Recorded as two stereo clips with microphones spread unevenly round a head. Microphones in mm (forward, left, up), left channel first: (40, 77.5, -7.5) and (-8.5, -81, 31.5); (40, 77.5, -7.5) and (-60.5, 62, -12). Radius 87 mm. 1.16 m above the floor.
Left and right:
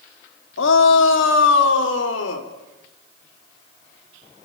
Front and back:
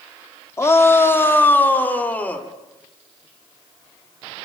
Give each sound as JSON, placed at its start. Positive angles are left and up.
{"t": 0.6, "sound": "a shout", "azimuth_deg": 75, "distance_m": 2.5}